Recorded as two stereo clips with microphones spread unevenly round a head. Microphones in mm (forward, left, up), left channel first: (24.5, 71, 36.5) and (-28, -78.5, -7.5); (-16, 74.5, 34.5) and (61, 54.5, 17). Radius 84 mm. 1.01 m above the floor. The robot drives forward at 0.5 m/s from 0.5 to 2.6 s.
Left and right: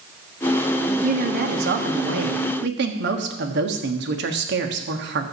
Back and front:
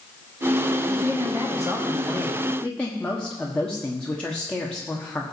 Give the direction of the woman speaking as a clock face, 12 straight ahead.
3 o'clock.